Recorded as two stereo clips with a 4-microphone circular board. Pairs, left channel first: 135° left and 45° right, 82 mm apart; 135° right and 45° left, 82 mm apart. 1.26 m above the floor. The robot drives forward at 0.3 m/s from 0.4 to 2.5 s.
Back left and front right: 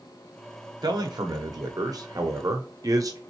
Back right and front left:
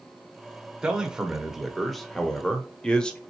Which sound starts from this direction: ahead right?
A man speaking, at 0.8 s.